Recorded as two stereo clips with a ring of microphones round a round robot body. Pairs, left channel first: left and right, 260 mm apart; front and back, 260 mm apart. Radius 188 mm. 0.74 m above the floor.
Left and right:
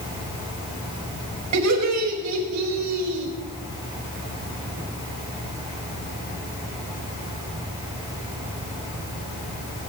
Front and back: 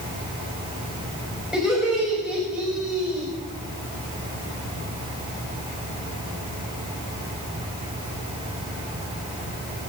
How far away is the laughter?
About 4 m.